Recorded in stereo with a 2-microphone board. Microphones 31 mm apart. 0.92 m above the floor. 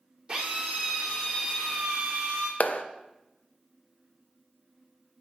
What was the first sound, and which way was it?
A drill, 20° right (ahead or behind).